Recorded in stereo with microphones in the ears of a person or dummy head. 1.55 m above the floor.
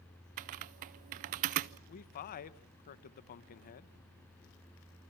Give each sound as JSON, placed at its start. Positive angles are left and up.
{"t": 0.4, "sound": "typing on a keyboard", "side_deg": -40, "distance_m": 0.5}
{"t": 1.9, "sound": "a man speaking", "side_deg": 40, "distance_m": 1.1}